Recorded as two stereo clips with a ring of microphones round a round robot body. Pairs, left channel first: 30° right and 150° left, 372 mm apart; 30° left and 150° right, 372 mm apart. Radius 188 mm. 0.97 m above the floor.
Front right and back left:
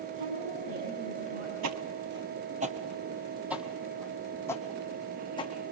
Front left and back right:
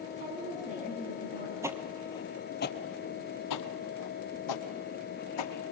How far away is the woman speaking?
About 7 m.